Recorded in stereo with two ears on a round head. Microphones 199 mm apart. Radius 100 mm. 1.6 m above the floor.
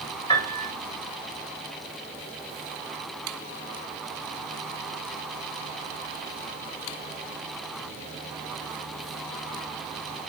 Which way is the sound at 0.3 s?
25° left (ahead or behind).